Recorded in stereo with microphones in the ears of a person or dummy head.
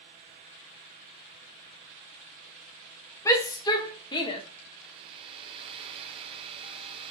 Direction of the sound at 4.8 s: 30° right (ahead or behind).